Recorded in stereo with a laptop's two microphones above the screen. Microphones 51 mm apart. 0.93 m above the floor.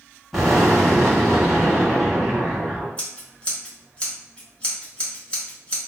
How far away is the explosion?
About 1.5 m.